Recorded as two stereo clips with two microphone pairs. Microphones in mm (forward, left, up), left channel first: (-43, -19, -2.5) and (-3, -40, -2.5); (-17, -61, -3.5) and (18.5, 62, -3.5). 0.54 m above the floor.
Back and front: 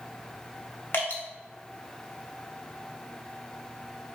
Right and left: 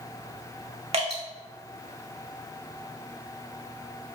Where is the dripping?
115° left, 0.7 m.